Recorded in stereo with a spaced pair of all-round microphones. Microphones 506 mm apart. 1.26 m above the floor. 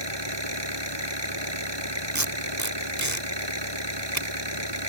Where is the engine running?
55° right (ahead or behind).